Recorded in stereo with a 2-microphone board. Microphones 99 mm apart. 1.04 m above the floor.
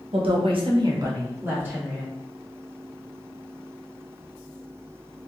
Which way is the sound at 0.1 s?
70° right (ahead or behind).